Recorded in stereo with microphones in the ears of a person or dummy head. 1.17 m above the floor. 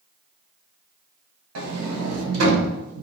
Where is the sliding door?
70° right (ahead or behind), 0.6 m.